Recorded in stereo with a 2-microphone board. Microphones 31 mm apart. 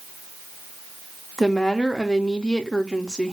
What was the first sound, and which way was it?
A woman speaking, 20° left (ahead or behind).